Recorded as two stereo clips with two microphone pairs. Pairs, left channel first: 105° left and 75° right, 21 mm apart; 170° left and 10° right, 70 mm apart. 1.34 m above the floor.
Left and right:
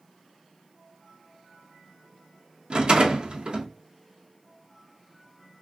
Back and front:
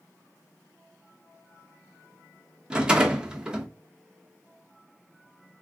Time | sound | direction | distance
2.7 | a rattle | 85° right | 0.8 m